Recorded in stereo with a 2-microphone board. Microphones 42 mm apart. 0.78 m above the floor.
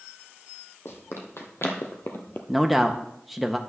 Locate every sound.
0.8 s running footsteps: 70° left (ahead or behind), 2 m; by 2.4 s 40° left (ahead or behind), 1.1 m
2.5 s a man speaking: 5° left (ahead or behind), 0.7 m